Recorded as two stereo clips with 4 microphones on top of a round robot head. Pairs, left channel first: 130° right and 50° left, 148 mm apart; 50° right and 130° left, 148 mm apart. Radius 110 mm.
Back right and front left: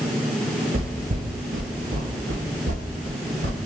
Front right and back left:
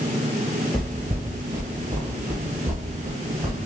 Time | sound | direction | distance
0.7 | footsteps | 35° left | 0.7 m